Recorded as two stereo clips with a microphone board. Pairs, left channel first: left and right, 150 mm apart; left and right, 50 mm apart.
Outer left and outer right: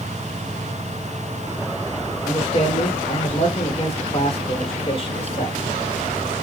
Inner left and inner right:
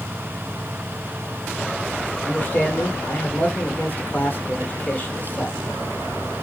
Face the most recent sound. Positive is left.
turn(degrees=40)  # may be behind; listen again after turning